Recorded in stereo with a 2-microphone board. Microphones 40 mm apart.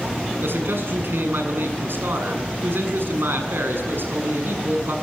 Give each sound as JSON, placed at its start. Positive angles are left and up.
{"t": 0.4, "sound": "a man speaking", "side_deg": -70, "distance_m": 7.5}